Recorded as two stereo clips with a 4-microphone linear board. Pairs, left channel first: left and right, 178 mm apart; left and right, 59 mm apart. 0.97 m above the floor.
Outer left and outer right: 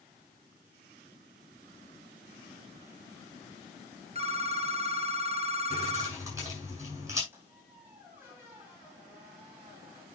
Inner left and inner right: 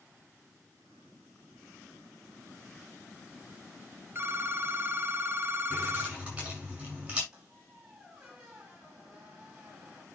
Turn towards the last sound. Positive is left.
turn(degrees=-10)  # may be behind; listen again after turning